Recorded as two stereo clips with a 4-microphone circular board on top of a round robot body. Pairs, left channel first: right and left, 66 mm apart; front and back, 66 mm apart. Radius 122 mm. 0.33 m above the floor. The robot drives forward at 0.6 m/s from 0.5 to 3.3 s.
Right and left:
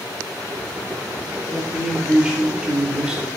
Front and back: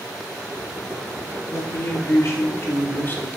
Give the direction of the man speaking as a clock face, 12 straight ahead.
12 o'clock.